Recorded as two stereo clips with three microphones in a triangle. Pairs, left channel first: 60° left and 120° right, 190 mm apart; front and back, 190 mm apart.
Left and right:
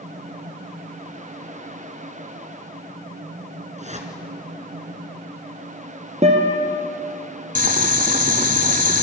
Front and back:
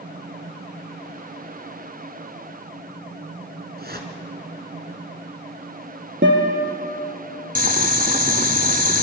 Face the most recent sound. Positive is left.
turn(degrees=-150)